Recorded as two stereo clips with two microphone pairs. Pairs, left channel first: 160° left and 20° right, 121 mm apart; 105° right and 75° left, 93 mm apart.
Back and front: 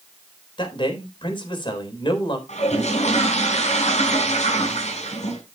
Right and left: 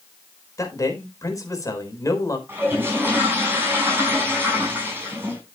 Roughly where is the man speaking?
Behind right.